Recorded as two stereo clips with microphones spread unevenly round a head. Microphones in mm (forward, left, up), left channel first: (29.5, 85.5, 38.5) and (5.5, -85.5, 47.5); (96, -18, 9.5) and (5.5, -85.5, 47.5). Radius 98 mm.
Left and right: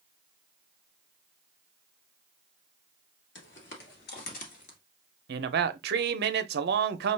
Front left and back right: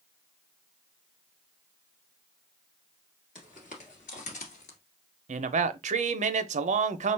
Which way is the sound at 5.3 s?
135° right.